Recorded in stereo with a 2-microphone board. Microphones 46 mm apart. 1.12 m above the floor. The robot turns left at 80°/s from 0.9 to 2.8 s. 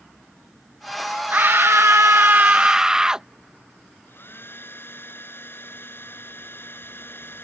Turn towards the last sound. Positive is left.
turn(degrees=60)  # may be behind; listen again after turning